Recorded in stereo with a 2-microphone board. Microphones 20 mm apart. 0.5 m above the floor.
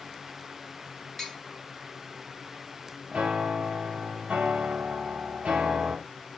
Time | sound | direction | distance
1.2 | tapping | 10° left (ahead or behind) | 0.9 m
3.1 | a piano | 85° right | 0.8 m